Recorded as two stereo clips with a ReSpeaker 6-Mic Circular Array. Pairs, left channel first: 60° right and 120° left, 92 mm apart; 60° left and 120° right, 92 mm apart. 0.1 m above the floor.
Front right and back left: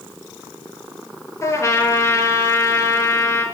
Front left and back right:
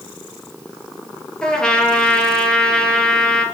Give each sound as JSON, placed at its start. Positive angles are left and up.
{"t": 1.4, "sound": "a trumpet", "azimuth_deg": -20, "distance_m": 1.9}